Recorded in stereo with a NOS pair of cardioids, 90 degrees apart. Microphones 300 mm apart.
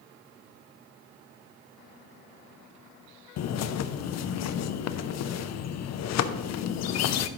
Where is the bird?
65° left, 0.6 m.